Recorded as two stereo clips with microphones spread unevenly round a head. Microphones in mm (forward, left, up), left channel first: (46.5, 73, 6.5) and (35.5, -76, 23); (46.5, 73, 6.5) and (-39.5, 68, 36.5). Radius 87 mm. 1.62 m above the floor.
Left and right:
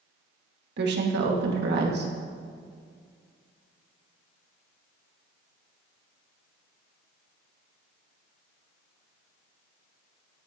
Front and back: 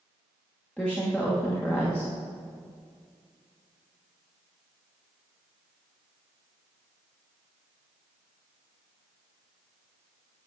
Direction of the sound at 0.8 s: 80° right.